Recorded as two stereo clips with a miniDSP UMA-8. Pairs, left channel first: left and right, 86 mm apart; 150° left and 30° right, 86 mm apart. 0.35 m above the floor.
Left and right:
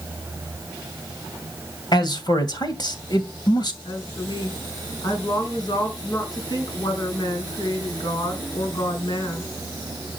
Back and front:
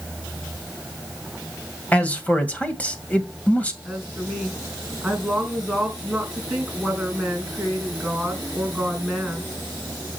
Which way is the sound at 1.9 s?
80° left.